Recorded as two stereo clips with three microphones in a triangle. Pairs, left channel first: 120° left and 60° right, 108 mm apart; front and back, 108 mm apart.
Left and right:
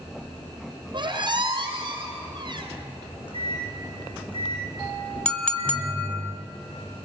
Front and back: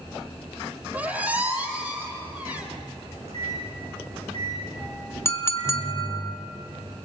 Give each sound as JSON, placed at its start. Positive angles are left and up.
{"t": 0.9, "sound": "a squeak", "azimuth_deg": -105, "distance_m": 4.0}
{"t": 3.0, "sound": "a microwave", "azimuth_deg": 160, "distance_m": 8.5}
{"t": 5.2, "sound": "a clink", "azimuth_deg": 50, "distance_m": 1.2}